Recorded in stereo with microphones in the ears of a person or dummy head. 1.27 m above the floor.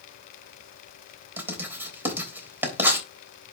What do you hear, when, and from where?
1.4 s writing: 10° right (ahead or behind), 3.5 m